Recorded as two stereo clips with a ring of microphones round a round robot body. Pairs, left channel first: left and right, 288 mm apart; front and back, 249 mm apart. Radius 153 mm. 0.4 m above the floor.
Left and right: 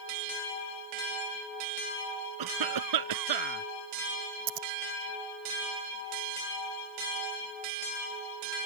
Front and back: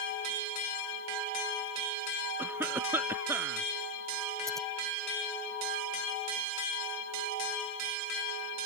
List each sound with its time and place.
2.4 s a cough: 100° right
4.5 s scissors: 90° right